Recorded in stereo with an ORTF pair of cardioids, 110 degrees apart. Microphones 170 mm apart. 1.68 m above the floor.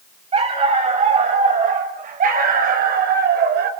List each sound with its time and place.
0.3 s a dog barking: 35° right, 5 m; by 3.7 s 70° right, 3.5 m